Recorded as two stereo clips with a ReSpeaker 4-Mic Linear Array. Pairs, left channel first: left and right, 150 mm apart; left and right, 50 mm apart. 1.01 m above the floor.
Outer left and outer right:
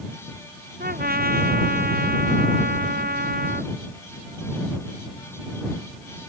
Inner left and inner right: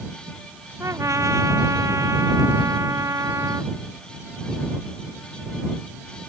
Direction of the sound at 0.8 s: 90° right.